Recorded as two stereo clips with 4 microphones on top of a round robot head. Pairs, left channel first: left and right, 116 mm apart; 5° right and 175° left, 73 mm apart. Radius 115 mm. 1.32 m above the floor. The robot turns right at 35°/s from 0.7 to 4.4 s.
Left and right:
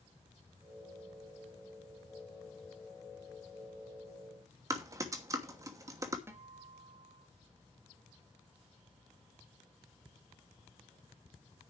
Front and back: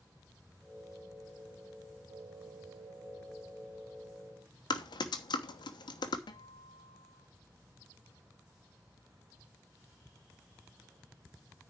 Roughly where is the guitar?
Ahead.